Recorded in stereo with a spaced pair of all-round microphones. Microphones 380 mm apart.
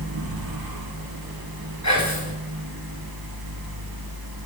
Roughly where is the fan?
Right.